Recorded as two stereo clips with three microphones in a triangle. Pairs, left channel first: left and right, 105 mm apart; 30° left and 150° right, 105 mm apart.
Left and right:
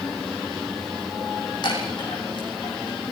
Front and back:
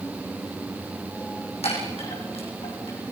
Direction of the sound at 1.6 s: 45° left.